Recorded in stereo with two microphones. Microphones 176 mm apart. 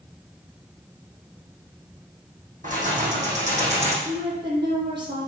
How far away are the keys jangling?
About 4.5 m.